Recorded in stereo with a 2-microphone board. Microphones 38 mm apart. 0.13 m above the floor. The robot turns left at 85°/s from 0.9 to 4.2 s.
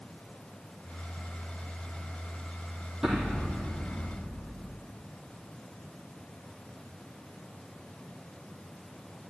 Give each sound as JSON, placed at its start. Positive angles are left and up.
{"t": 3.0, "sound": "an explosion", "azimuth_deg": -170, "distance_m": 4.0}